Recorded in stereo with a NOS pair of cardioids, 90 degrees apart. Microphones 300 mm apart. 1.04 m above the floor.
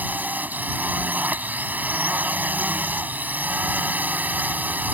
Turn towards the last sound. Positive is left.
turn(degrees=-5)